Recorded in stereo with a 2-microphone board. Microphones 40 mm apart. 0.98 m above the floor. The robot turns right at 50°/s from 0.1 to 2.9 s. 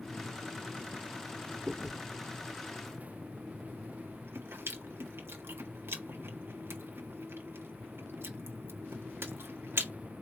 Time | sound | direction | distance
1.7 | chewing | 20° right (ahead or behind) | 1.5 m